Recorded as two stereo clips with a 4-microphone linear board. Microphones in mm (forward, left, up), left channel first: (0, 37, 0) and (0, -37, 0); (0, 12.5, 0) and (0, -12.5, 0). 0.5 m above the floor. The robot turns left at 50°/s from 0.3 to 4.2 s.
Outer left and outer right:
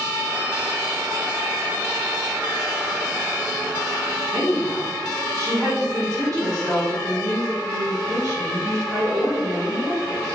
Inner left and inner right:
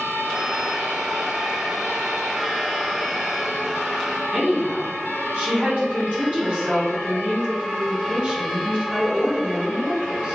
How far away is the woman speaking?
About 1.6 m.